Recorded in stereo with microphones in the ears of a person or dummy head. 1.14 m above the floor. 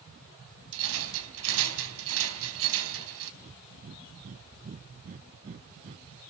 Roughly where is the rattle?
Right.